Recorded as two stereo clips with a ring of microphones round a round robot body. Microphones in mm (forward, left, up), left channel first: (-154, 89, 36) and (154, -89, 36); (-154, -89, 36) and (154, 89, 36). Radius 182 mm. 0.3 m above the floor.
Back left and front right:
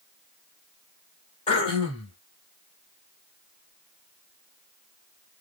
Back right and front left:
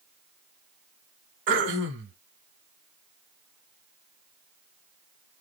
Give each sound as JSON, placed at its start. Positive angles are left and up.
{"t": 1.5, "sound": "throat clearing", "azimuth_deg": 80, "distance_m": 1.1}